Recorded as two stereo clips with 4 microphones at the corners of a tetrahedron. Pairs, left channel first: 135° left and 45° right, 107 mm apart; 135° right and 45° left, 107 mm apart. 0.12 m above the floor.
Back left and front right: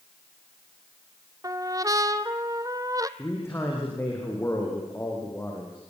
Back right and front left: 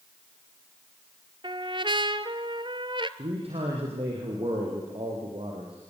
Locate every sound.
1.4 s a trumpet: 10° left, 0.9 m
3.2 s a man speaking: 70° left, 6 m